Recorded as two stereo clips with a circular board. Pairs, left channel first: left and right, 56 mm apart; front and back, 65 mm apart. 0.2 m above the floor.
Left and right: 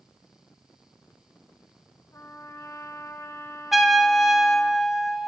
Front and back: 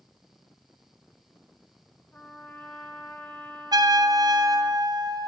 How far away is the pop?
I don't hear a pop.